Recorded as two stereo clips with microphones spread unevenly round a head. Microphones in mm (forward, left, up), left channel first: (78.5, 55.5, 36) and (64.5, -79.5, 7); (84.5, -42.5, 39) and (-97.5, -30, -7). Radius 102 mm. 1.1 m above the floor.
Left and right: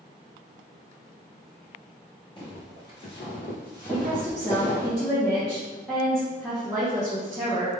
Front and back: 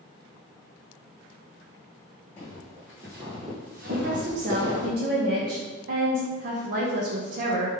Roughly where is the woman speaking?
Behind.